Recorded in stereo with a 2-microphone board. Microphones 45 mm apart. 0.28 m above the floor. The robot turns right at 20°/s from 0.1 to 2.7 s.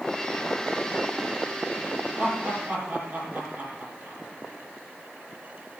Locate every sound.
2.2 s laughter: 40° right (ahead or behind), 9 m; by 4.2 s 50° right (ahead or behind), 9 m